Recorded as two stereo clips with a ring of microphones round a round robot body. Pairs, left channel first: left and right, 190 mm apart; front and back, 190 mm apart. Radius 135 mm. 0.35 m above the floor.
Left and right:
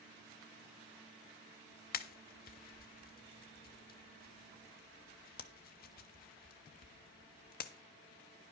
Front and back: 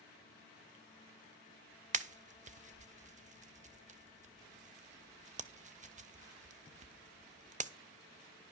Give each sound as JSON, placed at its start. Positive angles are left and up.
{"t": 1.9, "sound": "a pop", "azimuth_deg": 130, "distance_m": 0.7}